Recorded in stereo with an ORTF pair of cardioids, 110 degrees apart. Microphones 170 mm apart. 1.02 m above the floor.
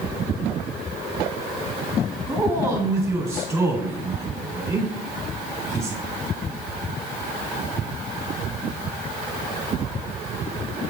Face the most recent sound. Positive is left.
turn(degrees=-15)